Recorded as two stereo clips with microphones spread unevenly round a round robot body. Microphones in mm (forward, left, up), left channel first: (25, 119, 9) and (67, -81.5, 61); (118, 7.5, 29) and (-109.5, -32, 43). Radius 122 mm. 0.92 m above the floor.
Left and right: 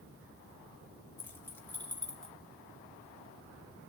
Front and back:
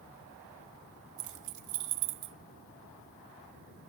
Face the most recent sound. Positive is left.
turn(degrees=-170)